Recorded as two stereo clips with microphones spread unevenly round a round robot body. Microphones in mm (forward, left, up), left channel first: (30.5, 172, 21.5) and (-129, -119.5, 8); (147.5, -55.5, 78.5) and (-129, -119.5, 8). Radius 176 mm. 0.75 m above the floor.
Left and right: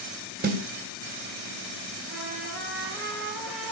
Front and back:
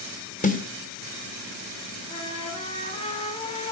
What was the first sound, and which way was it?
A snare drum, 55° right.